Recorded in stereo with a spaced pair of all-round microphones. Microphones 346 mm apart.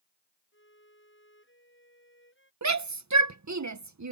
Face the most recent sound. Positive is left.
turn(degrees=-55)  # may be behind; listen again after turning